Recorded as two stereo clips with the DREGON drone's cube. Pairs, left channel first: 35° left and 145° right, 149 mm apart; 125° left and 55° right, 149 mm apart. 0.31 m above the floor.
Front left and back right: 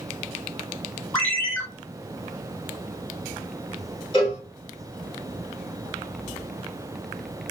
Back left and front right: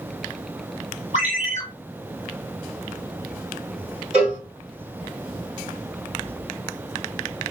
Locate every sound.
1.1 s a ringtone: 50° right, 1.3 m
4.1 s a cowbell: 25° left, 1.7 m